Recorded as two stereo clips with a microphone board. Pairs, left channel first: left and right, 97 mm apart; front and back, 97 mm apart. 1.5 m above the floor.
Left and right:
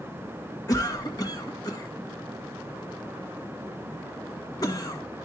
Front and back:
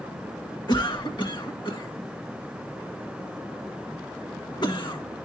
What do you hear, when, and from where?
0.7 s a cough: 40° left, 1.8 m